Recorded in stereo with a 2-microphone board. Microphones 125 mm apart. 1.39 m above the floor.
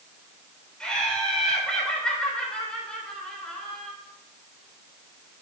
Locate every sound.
0.8 s laughter: 5° left (ahead or behind), 3 m